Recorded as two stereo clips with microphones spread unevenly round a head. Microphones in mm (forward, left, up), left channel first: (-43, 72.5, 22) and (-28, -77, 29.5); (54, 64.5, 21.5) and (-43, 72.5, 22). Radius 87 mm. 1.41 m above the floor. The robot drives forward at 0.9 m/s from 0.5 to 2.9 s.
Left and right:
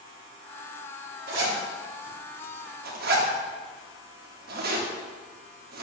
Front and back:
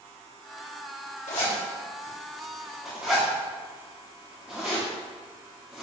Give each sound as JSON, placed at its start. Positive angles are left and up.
{"t": 1.3, "sound": "a zipper", "azimuth_deg": -40, "distance_m": 1.8}